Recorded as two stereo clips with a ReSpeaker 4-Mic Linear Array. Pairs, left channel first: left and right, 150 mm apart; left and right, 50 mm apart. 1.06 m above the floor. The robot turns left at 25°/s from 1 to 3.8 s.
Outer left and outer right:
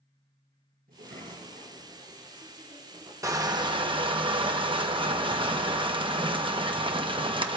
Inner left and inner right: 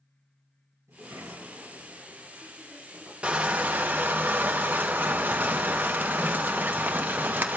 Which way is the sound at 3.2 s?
20° right (ahead or behind).